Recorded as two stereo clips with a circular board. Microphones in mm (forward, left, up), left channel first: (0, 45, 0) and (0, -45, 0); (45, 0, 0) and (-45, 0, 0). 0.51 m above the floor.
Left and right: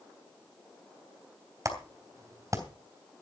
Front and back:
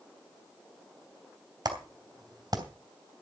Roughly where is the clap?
Behind right.